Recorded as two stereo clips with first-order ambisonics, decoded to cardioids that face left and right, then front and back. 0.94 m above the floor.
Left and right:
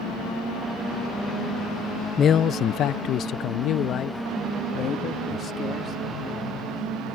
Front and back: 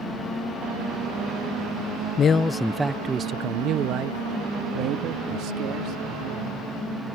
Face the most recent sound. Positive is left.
turn(degrees=150)